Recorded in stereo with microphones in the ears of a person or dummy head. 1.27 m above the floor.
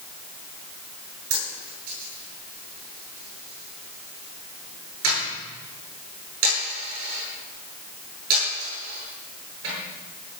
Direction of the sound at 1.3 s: 80° right.